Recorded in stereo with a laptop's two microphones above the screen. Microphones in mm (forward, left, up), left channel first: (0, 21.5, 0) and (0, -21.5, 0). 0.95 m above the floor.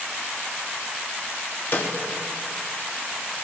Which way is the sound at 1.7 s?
55° left (ahead or behind).